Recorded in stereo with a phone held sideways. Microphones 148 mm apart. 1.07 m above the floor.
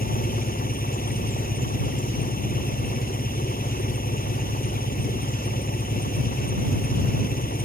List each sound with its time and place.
0.0 s an engine running: 85° left